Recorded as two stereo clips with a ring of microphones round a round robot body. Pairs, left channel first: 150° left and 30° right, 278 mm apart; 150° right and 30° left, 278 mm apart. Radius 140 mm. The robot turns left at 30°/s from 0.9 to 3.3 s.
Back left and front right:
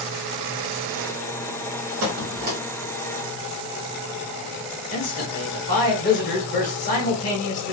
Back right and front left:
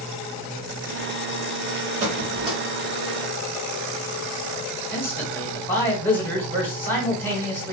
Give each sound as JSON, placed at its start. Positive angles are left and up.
{"t": 2.0, "sound": "a squeak", "azimuth_deg": -25, "distance_m": 1.1}
{"t": 4.9, "sound": "a man speaking", "azimuth_deg": 135, "distance_m": 1.3}